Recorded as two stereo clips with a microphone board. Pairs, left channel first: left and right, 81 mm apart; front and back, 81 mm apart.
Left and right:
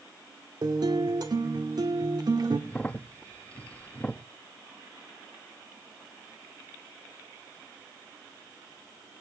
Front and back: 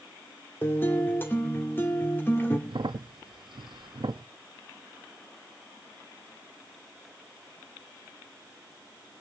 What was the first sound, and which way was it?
A guitar, 65° right.